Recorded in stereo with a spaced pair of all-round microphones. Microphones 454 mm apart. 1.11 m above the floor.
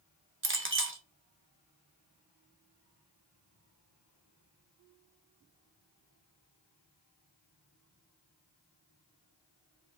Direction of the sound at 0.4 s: 25° right (ahead or behind).